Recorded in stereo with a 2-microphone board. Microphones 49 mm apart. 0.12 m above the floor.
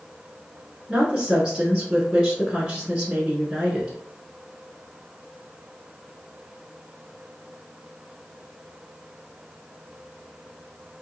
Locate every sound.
0.9 s a woman speaking: 20° right (ahead or behind), 1.1 m